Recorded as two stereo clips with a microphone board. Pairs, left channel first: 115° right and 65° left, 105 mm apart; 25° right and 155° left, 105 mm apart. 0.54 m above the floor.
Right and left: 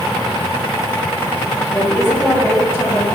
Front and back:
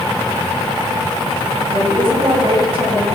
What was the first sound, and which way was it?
A woman speaking, straight behind.